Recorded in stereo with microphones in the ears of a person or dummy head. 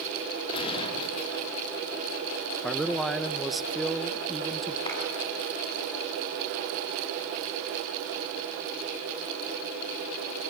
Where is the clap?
30° left (ahead or behind), 9 m.